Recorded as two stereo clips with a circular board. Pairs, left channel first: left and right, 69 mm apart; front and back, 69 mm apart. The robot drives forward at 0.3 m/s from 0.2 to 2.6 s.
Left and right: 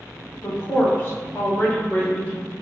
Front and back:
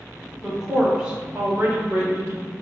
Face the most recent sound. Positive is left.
turn(degrees=145)